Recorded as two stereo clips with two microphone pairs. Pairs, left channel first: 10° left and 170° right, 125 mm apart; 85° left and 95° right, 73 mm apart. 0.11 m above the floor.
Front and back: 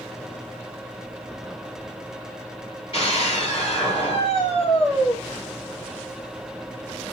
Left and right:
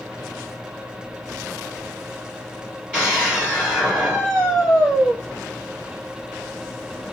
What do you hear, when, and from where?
2.9 s a scream: 20° right, 2.5 m